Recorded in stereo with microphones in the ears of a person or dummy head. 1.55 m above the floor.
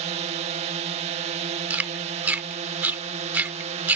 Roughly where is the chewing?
Centre.